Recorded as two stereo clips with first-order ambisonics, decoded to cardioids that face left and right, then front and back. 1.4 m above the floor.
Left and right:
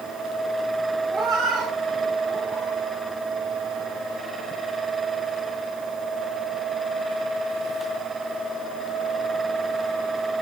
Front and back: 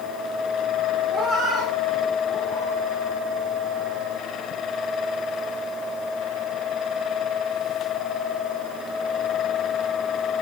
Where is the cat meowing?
110° right, 1.6 m; by 2.8 s 40° right, 1.4 m.